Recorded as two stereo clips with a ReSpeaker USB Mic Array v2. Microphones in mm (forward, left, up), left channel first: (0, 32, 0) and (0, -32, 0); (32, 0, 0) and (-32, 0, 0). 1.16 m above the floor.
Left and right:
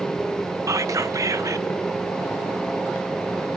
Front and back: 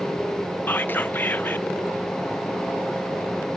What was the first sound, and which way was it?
Whispering, 60° right.